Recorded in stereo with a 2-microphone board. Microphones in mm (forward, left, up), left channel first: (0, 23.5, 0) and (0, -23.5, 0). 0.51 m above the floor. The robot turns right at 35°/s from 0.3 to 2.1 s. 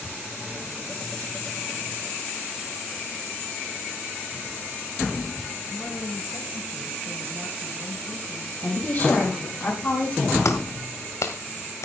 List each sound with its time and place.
5.7 s a woman speaking: 60° left (ahead or behind), 5.5 m
8.6 s a woman speaking: 45° left (ahead or behind), 5 m
10.4 s a clap: 75° left (ahead or behind), 1.8 m